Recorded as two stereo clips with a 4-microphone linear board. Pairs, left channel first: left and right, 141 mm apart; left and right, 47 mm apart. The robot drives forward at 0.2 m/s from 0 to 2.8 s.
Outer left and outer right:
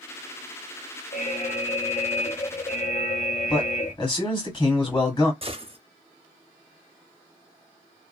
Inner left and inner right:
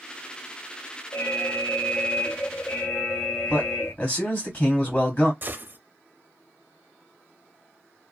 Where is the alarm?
65° left (ahead or behind), 0.8 m; by 3.9 s 55° left (ahead or behind), 0.9 m.